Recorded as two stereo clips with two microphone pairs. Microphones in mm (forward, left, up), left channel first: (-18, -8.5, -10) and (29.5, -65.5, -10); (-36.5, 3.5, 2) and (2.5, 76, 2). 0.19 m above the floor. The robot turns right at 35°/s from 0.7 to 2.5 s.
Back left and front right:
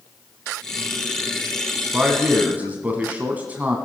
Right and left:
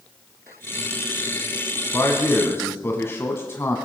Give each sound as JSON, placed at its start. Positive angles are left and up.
{"t": 1.9, "sound": "a man speaking", "azimuth_deg": -115, "distance_m": 1.2}